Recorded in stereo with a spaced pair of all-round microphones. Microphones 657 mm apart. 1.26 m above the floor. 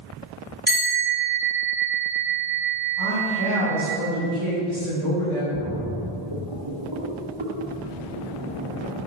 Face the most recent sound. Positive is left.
turn(degrees=-45)  # may be behind; listen again after turning